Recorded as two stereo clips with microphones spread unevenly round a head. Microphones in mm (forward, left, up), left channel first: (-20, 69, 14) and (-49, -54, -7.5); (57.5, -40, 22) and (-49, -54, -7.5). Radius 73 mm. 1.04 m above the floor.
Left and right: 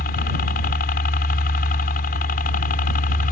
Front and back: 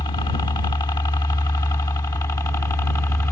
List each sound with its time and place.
0.0 s a helicopter: 70° left; by 3.3 s 80° left